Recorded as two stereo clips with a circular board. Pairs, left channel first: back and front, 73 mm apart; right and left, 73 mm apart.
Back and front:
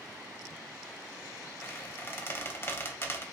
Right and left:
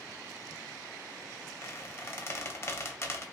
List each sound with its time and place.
1.6 s a squeak: 135° right, 0.7 m